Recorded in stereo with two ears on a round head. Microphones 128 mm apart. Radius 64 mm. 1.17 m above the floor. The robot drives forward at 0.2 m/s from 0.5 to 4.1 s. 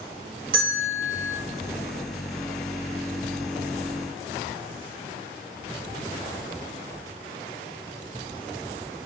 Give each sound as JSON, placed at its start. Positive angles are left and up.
{"t": 0.5, "sound": "a bell", "side_deg": -70, "distance_m": 2.5}